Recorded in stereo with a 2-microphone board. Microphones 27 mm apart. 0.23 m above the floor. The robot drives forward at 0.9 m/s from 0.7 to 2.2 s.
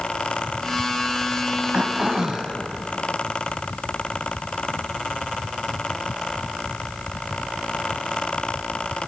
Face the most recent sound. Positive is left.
turn(degrees=-25)  # may be behind; listen again after turning